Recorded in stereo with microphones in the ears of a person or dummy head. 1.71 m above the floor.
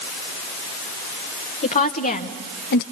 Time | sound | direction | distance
1.6 | a woman speaking | 40° left (ahead or behind) | 1.6 m